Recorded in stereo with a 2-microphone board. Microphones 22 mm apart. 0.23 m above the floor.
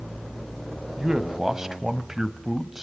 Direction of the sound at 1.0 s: 30° right (ahead or behind).